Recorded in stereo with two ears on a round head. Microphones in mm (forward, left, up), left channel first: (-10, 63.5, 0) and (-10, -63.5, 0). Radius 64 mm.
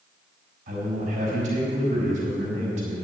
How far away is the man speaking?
About 4.5 m.